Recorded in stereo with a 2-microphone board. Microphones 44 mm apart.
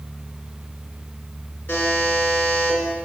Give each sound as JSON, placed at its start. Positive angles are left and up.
{"t": 1.7, "sound": "a buzzer", "side_deg": 50, "distance_m": 3.0}